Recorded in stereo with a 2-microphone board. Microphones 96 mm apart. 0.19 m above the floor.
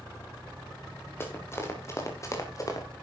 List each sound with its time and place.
1.2 s running footsteps: 25° left (ahead or behind), 4 m; by 2.9 s 40° left (ahead or behind), 3 m